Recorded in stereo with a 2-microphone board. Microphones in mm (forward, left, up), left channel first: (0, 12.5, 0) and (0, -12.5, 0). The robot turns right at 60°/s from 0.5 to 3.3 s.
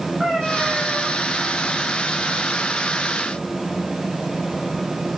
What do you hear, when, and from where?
0.2 s a cat meowing: 165° right, 8 m; by 1.1 s 130° right, 8 m